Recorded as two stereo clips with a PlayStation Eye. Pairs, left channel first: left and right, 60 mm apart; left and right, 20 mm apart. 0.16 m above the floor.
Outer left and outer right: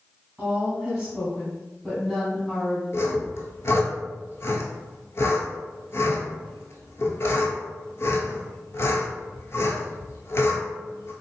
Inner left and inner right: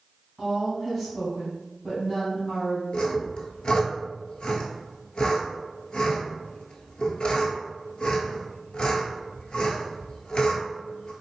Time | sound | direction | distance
0.4 | a woman speaking | 20° right (ahead or behind) | 1.6 m
2.9 | sawing | 55° left (ahead or behind) | 0.9 m